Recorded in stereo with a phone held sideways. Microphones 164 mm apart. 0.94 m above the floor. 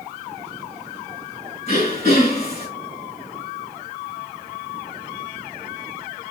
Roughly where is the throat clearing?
Left.